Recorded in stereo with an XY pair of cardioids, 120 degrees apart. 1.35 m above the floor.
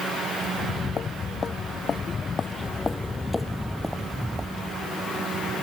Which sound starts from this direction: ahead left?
Footsteps, at 0.5 s.